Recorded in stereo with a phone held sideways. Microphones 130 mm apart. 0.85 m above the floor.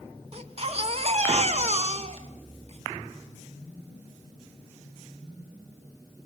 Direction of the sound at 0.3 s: 50° right (ahead or behind).